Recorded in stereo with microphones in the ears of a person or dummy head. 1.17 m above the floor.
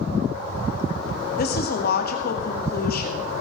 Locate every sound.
1.4 s a woman speaking: 55° left (ahead or behind), 2.5 m